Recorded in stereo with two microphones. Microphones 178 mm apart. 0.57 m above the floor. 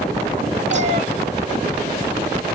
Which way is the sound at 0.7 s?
40° right (ahead or behind).